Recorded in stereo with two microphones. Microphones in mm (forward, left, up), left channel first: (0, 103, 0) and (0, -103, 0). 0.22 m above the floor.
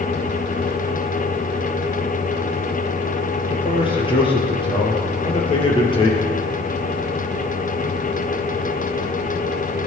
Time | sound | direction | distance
3.5 | a man speaking | 25° left (ahead or behind) | 4 m